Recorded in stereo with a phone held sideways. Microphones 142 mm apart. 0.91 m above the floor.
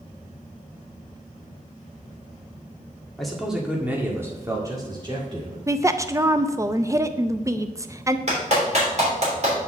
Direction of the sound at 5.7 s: 20° right (ahead or behind).